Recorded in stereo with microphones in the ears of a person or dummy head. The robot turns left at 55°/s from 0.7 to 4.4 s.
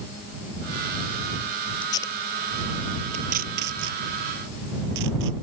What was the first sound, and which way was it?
Tape being pulled, 35° left (ahead or behind).